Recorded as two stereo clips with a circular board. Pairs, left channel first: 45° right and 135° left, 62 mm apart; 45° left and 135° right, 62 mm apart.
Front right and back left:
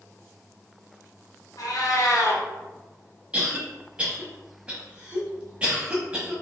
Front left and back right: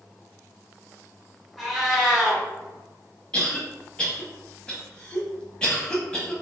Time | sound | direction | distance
1.6 | a cat meowing | 40° right | 1.4 m
3.3 | a cough | 95° left | 1.0 m